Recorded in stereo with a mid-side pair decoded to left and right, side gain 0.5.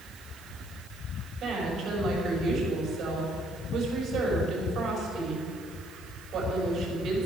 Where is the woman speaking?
60° right, 5.5 m.